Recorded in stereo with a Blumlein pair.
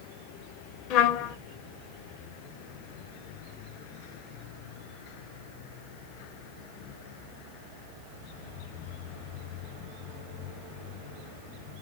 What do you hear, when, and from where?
0.9 s a trumpet: 40° left, 0.6 m